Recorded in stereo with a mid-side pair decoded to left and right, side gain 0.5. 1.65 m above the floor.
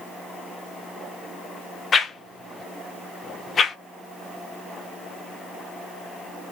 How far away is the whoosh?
About 0.8 m.